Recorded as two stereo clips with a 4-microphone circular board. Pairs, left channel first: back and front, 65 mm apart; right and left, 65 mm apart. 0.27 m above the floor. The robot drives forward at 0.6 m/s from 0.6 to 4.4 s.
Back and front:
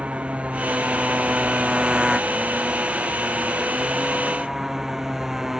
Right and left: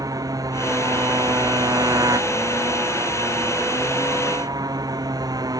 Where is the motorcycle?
70° left; by 5.6 s 85° left.